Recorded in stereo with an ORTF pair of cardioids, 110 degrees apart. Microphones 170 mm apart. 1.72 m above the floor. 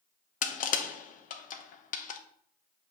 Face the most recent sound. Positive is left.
turn(degrees=55)